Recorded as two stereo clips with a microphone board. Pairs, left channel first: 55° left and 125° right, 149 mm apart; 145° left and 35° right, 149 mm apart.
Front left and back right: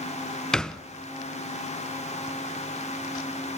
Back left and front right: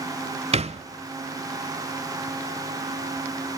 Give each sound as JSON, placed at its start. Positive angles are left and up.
{"t": 0.5, "sound": "a thud", "azimuth_deg": -30, "distance_m": 0.6}